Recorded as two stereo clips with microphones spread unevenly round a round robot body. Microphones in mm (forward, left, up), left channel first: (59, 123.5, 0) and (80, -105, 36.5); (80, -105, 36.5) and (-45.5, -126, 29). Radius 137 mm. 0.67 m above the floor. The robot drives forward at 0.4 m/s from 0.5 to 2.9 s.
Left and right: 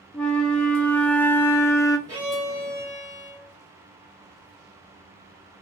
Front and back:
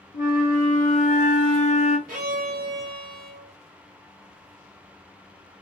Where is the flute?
15° left, 1.0 m; by 2.0 s 35° left, 0.5 m.